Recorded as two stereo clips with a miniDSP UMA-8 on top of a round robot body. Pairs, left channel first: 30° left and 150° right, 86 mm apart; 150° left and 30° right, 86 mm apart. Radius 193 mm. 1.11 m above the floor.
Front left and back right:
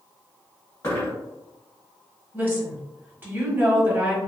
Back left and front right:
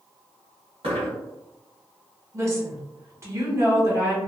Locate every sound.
0.8 s a dropped coin: 30° right, 1.6 m
2.3 s a woman speaking: 85° right, 1.4 m